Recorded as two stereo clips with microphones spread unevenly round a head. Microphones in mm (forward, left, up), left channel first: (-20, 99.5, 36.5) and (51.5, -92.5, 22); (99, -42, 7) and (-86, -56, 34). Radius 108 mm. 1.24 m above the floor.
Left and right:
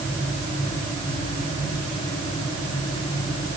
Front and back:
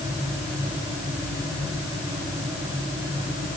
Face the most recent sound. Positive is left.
No sound to turn to.